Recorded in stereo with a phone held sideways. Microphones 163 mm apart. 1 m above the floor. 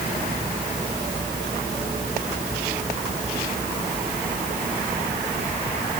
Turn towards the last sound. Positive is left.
No sound to turn to.